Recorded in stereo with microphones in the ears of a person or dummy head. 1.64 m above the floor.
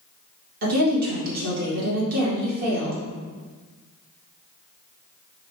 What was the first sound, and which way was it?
A woman speaking, 50° right (ahead or behind).